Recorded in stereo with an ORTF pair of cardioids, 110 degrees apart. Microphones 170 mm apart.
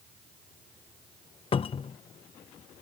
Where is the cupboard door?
35° left.